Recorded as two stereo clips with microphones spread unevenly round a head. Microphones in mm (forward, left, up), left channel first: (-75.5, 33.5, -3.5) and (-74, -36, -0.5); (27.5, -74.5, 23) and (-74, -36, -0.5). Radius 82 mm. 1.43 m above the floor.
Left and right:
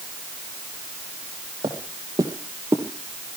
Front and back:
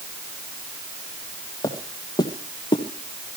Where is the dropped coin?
I don't hear a dropped coin.